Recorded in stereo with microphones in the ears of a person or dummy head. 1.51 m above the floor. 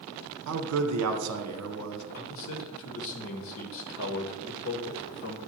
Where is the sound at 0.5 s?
85° right, 1.0 m.